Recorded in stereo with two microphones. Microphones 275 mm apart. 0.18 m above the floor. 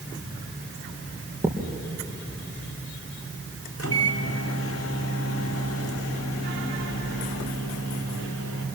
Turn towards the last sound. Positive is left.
turn(degrees=50)  # may be behind; listen again after turning